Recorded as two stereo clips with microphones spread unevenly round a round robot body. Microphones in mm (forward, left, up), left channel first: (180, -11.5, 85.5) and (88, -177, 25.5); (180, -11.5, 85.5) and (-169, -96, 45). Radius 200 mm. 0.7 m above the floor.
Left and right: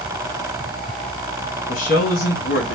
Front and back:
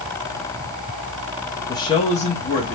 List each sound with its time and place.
1.7 s a man speaking: 95° left, 0.6 m; by 2.8 s 80° left, 0.9 m